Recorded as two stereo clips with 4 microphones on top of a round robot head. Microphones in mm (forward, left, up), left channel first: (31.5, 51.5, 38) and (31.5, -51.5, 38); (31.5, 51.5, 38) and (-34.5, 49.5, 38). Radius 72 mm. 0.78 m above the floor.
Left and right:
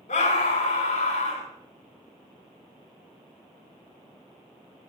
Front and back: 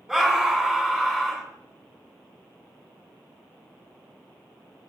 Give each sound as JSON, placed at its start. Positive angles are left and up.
{"t": 0.1, "sound": "a scream", "azimuth_deg": 100, "distance_m": 8.5}